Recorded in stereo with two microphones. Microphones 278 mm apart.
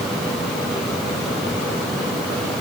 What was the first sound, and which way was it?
Only background noise.